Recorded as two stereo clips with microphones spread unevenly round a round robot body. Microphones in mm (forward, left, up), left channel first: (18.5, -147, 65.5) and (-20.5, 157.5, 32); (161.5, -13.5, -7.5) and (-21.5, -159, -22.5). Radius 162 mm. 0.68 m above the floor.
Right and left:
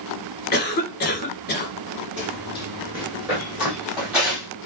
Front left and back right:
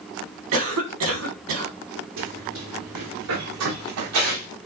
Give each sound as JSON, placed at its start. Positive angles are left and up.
{"t": 0.5, "sound": "a cough", "azimuth_deg": -145, "distance_m": 3.0}
{"t": 2.2, "sound": "running footsteps", "azimuth_deg": -175, "distance_m": 5.0}